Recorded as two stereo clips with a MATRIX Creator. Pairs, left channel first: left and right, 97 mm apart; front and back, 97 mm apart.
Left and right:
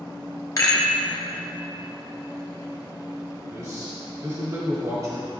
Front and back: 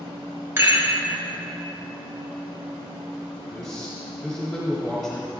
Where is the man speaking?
80° right, 1.1 m.